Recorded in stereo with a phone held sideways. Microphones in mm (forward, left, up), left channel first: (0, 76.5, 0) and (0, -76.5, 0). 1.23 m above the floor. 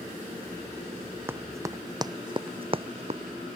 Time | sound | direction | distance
1.3 | running footsteps | 15° right (ahead or behind) | ?